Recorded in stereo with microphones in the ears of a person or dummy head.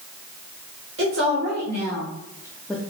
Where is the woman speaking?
70° right (ahead or behind), 1.1 m; by 2.8 s 5° left (ahead or behind), 0.5 m.